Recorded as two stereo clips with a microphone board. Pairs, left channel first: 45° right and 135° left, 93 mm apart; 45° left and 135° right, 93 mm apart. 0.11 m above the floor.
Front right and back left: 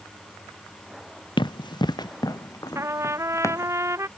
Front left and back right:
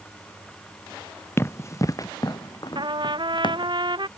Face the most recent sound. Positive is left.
turn(degrees=-165)